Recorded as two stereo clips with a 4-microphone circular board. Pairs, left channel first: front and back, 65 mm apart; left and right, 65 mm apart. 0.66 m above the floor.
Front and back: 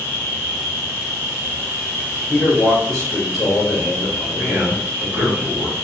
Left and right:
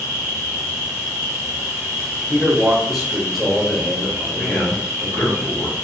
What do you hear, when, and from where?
0.0 s an insect: 125° right, 1.0 m
2.3 s a man speaking: straight ahead, 0.8 m
4.3 s a man speaking: 130° left, 1.6 m